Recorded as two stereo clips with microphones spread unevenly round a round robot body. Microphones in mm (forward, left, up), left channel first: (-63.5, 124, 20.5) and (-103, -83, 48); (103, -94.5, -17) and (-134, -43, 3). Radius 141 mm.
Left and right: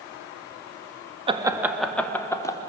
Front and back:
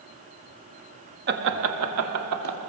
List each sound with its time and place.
1.3 s laughter: 165° right, 1.3 m; by 2.6 s 150° left, 2.5 m